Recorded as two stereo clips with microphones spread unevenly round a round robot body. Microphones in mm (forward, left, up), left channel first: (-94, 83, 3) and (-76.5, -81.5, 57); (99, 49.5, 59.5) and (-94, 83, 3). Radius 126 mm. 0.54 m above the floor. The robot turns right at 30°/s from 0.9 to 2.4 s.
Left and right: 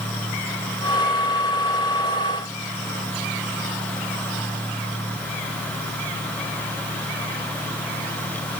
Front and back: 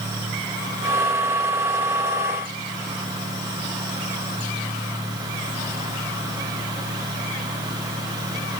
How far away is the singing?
I don't hear singing.